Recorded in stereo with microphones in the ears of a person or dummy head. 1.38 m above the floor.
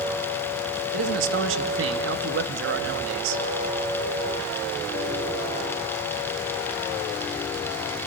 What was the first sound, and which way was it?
A man speaking, 70° right (ahead or behind).